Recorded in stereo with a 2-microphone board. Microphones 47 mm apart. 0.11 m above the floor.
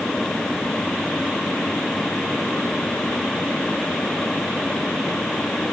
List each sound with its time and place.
Only background noise.